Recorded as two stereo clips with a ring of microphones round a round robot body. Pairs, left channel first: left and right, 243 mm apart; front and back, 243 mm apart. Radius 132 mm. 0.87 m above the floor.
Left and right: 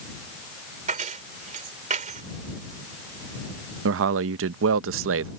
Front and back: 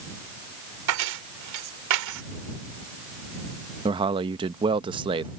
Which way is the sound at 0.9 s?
155° right.